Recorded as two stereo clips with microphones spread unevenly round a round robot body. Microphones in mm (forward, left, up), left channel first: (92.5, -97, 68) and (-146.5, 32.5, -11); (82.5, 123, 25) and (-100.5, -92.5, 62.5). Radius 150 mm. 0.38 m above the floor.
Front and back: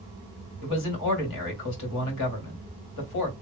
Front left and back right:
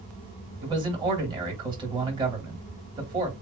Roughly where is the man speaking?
Ahead right.